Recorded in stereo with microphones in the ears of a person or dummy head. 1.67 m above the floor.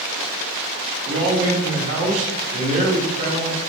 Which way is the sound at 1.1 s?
45° right (ahead or behind).